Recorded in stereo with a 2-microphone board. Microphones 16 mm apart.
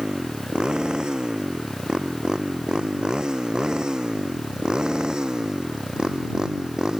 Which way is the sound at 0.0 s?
60° right (ahead or behind).